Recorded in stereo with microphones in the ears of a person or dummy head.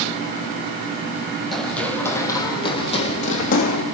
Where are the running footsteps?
5° left (ahead or behind), 3 m; by 3.8 s 45° left (ahead or behind), 3.5 m.